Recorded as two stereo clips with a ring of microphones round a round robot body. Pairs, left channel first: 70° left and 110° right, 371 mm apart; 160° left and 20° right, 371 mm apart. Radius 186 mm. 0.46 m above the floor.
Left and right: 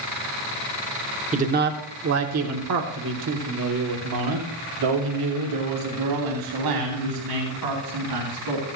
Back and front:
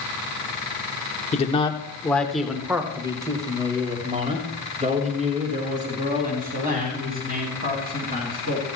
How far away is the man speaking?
About 1.0 m.